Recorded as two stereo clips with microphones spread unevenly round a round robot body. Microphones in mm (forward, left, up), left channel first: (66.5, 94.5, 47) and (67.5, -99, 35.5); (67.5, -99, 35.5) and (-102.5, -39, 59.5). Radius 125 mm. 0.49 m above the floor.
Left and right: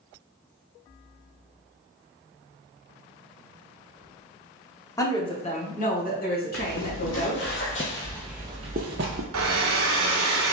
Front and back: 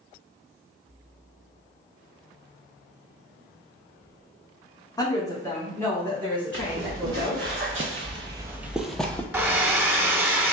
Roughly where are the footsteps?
Left.